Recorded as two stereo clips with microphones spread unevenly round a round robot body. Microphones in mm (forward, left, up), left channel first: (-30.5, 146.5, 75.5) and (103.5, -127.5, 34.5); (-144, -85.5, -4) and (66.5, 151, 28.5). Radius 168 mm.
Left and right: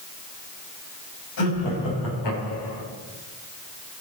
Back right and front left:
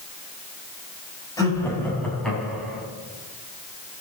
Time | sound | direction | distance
1.4 | laughter | 150° left | 4.5 m